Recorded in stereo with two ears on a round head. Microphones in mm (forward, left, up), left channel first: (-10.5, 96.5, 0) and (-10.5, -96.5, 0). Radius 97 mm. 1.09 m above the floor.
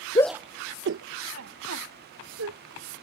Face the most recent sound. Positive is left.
turn(degrees=-85)